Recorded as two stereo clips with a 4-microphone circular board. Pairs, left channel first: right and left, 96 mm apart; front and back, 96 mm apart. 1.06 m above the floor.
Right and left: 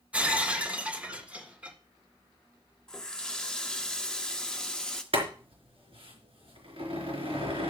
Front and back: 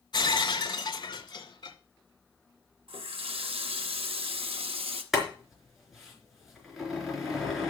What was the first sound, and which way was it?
Breaking glass, 15° left.